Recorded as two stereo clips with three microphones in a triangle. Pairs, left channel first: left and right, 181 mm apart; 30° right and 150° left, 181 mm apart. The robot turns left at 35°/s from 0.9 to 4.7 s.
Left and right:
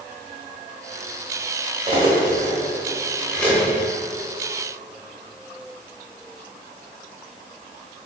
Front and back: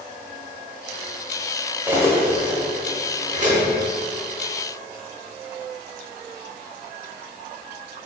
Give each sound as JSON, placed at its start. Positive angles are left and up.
{"t": 1.9, "sound": "cutlery clinking", "azimuth_deg": -135, "distance_m": 0.7}